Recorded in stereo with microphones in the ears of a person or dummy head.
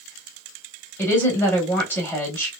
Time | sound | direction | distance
1.0 | a woman speaking | 15° left (ahead or behind) | 1.2 m